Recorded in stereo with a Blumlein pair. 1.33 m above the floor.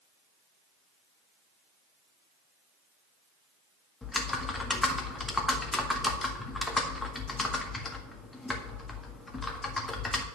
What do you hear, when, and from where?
4.0 s typing on a keyboard: 10° left, 1.6 m